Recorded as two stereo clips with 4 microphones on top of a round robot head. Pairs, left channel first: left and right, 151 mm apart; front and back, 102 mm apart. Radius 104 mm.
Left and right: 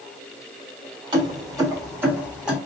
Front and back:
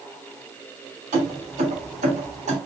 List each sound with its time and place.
1.1 s keys jangling: 150° right, 1.8 m; by 2.6 s 175° right, 1.7 m